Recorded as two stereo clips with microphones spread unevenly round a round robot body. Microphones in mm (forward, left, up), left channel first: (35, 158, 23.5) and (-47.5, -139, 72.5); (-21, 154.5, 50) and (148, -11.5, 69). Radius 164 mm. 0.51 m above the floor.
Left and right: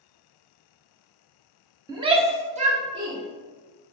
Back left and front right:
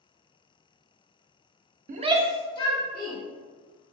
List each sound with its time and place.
1.9 s a shout: 20° right, 1.0 m; by 3.2 s straight behind, 1.8 m